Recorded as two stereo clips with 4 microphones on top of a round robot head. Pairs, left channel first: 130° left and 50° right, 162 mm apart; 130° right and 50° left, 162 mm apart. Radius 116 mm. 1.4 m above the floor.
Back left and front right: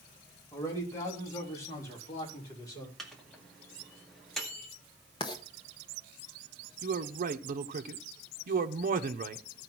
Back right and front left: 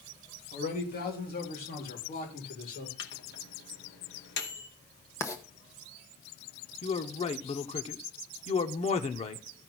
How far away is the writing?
About 0.6 m.